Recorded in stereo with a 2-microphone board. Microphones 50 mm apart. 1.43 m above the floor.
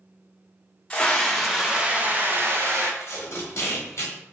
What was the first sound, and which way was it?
A scream, 20° left (ahead or behind).